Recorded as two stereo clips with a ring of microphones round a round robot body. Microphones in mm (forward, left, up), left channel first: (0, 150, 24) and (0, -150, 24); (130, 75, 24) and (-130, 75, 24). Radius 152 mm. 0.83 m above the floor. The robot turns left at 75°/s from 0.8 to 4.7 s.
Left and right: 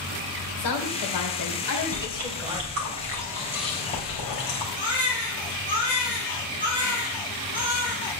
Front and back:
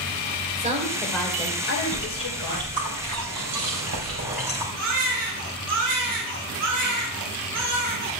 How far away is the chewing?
About 3.5 m.